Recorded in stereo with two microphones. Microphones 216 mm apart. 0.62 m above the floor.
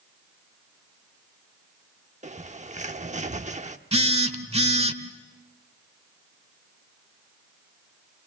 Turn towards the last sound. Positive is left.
turn(degrees=-30)  # may be behind; listen again after turning